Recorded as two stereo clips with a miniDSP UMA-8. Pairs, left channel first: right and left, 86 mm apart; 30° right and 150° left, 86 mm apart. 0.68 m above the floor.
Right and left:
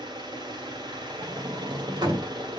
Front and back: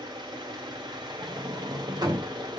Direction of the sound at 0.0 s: 115° left.